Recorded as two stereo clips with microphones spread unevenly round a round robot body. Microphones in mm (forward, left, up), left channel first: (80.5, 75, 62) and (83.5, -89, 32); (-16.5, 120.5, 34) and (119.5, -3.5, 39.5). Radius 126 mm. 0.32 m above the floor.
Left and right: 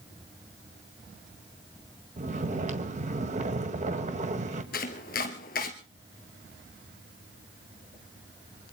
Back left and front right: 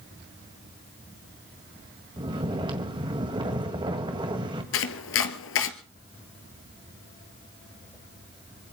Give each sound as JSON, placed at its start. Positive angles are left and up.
{"t": 2.2, "sound": "snoring", "azimuth_deg": -105, "distance_m": 1.8}
{"t": 4.7, "sound": "chopping", "azimuth_deg": 145, "distance_m": 1.5}